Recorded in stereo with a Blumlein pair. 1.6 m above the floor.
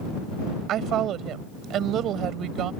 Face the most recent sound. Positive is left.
turn(degrees=-30)